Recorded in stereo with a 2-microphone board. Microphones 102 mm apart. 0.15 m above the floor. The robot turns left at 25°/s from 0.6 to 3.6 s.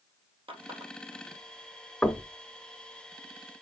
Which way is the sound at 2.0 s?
5° left (ahead or behind).